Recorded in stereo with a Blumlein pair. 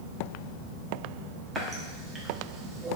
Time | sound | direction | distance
1.6 | a running tap | 15° right | 0.6 m